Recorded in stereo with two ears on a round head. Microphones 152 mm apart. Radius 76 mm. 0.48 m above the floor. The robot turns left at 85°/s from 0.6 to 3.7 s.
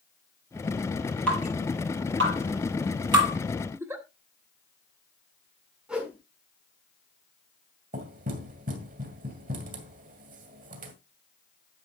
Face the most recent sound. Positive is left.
turn(degrees=-50)  # may be behind; listen again after turning